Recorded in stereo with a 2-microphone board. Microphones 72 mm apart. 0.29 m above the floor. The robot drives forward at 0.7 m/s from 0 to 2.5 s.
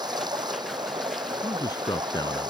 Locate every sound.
0.0 s running water: 80° right; by 2.5 s 85° right
1.4 s a man speaking: 70° left (ahead or behind)